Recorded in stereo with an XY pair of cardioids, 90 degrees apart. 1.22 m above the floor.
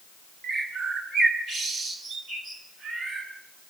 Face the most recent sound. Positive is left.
turn(degrees=-60)